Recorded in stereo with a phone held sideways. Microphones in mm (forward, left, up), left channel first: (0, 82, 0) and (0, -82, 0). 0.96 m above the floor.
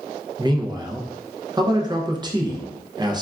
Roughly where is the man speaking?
Right.